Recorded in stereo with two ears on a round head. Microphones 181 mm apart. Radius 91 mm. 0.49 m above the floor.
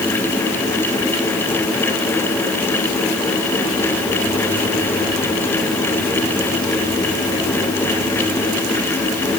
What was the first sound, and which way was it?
Only background noise.